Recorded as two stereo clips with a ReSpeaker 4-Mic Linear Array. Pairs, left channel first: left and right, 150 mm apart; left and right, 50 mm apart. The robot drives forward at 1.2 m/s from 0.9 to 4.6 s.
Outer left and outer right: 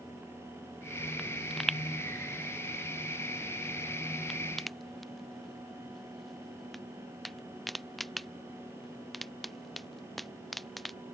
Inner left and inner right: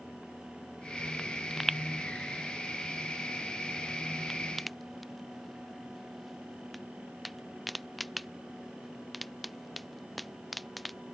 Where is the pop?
Centre (ahead or behind).